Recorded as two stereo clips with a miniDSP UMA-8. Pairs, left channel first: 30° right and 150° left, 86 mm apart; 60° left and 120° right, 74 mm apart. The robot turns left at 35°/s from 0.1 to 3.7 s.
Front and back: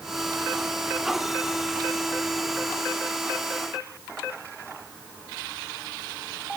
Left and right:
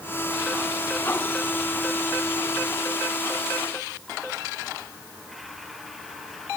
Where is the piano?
I don't hear a piano.